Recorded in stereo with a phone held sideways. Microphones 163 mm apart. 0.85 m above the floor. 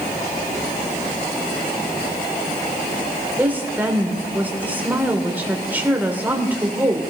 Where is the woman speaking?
10° right (ahead or behind), 2.5 m.